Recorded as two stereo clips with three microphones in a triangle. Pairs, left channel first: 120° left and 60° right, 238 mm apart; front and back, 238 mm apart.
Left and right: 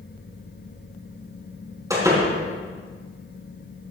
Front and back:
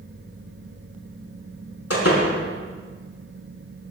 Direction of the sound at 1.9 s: 15° left.